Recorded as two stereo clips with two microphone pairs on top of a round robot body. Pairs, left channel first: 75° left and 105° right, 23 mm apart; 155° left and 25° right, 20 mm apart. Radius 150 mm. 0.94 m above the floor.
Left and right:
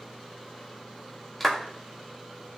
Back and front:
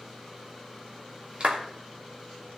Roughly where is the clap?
Ahead.